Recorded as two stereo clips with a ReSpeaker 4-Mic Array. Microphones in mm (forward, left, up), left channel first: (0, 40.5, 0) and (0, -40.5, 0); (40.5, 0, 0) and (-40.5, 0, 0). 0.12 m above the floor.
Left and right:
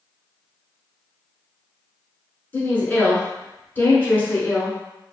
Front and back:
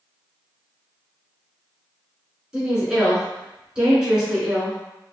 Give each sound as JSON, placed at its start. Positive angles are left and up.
{"t": 2.5, "sound": "a woman speaking", "azimuth_deg": 110, "distance_m": 1.2}